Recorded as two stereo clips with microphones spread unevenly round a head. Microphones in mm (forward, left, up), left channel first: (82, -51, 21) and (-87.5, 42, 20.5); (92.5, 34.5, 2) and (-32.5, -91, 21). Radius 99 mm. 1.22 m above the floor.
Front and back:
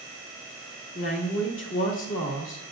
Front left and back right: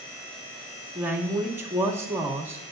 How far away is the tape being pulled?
I don't hear tape being pulled.